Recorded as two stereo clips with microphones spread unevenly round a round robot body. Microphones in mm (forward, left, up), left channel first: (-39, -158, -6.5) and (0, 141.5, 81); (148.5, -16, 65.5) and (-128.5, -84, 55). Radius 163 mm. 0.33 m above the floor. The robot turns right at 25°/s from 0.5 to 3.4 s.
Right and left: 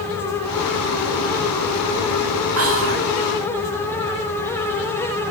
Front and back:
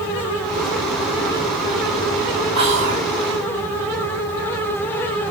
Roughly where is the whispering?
Behind left.